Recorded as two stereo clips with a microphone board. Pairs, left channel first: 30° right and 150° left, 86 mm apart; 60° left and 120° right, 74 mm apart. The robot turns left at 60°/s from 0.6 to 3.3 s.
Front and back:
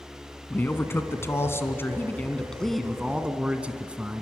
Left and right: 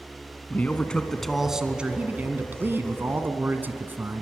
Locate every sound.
0.5 s a man speaking: 15° left, 1.4 m; by 4.2 s 150° right, 1.4 m